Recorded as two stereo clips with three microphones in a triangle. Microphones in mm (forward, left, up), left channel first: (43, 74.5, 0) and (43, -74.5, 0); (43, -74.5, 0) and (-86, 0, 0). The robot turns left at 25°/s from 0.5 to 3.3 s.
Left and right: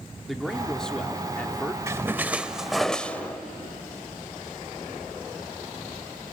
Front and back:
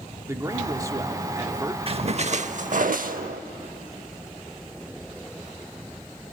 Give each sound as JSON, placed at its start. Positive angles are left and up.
{"t": 0.3, "sound": "a man speaking", "azimuth_deg": 175, "distance_m": 1.0}
{"t": 1.9, "sound": "a splash", "azimuth_deg": -160, "distance_m": 0.6}